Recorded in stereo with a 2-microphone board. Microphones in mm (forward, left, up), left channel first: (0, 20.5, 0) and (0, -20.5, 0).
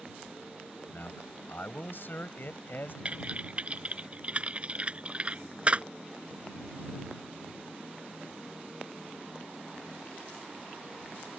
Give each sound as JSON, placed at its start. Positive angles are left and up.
{"t": 0.9, "sound": "a man speaking", "side_deg": 55}
{"t": 3.0, "sound": "typing on a keyboard", "side_deg": -30}